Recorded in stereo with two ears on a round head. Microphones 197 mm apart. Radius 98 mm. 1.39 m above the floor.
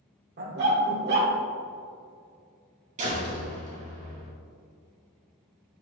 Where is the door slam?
30° right (ahead or behind), 2.5 m.